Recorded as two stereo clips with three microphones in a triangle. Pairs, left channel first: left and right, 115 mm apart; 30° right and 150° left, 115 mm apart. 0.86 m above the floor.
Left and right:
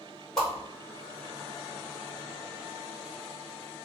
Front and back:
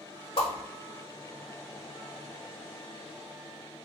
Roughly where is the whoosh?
Ahead.